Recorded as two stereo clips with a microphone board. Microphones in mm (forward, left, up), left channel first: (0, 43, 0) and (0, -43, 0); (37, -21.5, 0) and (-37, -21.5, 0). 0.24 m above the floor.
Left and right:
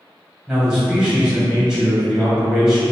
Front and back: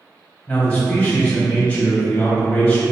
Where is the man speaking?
35° right, 1.3 m.